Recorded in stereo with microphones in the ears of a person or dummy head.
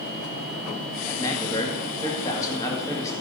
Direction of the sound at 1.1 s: 20° left (ahead or behind).